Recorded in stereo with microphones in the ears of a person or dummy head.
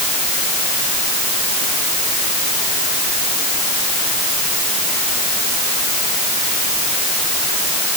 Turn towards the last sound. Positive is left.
No sound to turn to.